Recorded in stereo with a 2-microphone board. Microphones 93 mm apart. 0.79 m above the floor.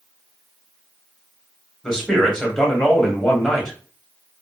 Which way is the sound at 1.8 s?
5° left (ahead or behind).